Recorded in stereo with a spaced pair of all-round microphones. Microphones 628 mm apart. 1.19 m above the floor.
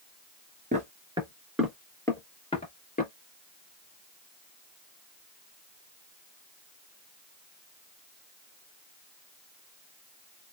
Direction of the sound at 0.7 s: 10° right (ahead or behind).